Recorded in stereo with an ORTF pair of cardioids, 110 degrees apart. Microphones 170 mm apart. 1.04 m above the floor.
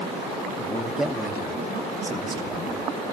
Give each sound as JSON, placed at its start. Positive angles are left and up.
{"t": 0.6, "sound": "a man speaking", "azimuth_deg": 5, "distance_m": 2.0}